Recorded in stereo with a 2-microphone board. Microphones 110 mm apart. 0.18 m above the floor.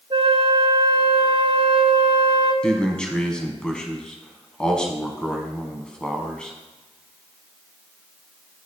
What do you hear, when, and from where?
0.1 s a flute: 55° right (ahead or behind), 0.9 m
2.6 s a man speaking: 10° left (ahead or behind), 1.0 m